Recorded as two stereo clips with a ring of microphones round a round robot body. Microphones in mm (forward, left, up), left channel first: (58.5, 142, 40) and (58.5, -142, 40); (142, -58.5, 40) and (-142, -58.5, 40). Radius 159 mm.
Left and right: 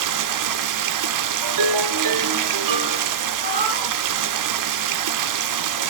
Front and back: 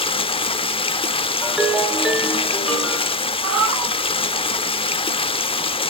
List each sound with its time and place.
0.0 s running water: 75° right, 0.8 m
1.4 s a ringtone: 90° right, 1.2 m
3.4 s a cat meowing: 150° right, 2.5 m